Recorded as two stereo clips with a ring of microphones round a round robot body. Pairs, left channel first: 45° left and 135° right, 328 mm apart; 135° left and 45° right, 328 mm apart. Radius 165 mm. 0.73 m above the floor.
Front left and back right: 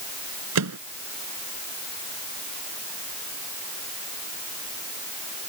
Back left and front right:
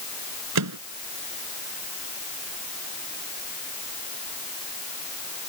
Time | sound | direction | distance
0.6 | a microwave | 90° right | ?